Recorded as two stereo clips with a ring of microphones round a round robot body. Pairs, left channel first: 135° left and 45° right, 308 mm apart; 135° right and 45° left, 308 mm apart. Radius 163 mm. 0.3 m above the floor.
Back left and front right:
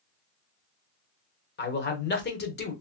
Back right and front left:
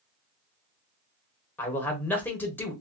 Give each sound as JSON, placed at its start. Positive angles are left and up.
{"t": 1.6, "sound": "a man speaking", "azimuth_deg": 145, "distance_m": 1.0}